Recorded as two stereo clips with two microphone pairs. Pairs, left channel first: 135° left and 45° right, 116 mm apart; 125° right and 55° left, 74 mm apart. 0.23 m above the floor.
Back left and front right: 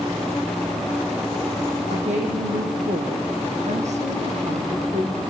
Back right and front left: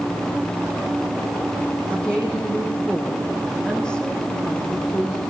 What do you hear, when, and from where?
1.9 s a woman speaking: 50° right, 8.5 m; by 5.2 s 45° right, 10.5 m